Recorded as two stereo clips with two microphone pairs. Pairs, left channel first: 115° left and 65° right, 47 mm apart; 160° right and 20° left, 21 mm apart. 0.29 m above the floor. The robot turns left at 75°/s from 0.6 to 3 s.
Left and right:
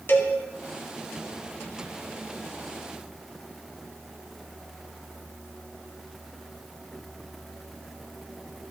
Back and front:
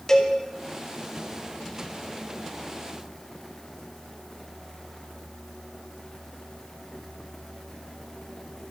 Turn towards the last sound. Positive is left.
turn(degrees=-45)